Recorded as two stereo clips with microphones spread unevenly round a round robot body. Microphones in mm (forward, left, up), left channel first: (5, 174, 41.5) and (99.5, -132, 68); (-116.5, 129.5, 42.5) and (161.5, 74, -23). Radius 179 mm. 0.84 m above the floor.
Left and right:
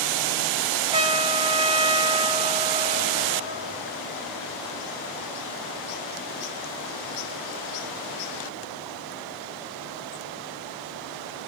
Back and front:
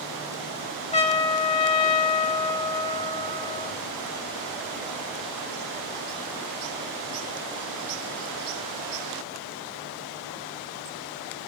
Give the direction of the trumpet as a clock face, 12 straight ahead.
5 o'clock.